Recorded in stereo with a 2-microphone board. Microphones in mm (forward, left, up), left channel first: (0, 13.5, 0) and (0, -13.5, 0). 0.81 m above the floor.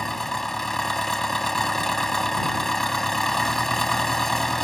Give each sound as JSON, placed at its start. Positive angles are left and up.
{"t": 0.0, "sound": "an engine running", "side_deg": 10}